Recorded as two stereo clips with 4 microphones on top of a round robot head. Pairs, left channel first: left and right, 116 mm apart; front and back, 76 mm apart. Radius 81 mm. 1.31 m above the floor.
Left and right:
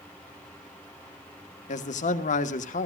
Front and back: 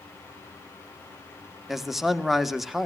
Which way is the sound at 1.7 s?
90° left.